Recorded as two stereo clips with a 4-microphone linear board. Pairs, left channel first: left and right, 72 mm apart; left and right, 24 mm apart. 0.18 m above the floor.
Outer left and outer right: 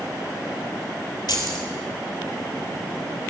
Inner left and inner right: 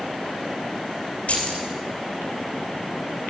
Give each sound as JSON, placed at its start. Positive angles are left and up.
{"t": 1.3, "sound": "keys jangling", "side_deg": 75, "distance_m": 2.5}